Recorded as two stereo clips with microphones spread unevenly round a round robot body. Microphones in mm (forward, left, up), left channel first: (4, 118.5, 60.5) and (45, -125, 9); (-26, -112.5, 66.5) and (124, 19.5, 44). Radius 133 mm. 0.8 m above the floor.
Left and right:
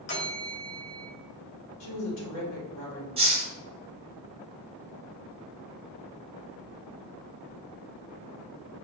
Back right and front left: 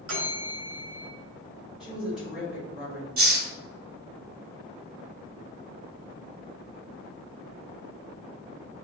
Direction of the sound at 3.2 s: 5° right.